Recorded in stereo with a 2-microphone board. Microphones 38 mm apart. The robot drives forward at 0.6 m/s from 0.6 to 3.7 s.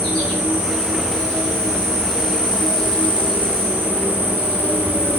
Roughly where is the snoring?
I don't hear snoring.